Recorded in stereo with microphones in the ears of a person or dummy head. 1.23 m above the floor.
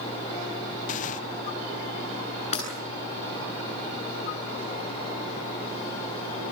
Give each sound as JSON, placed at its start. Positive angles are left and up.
{"t": 0.9, "sound": "tearing paper", "side_deg": 45, "distance_m": 0.8}
{"t": 2.5, "sound": "breaking glass", "side_deg": 40, "distance_m": 9.0}